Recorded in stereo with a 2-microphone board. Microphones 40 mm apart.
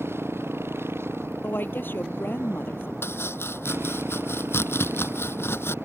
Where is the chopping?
75° left (ahead or behind).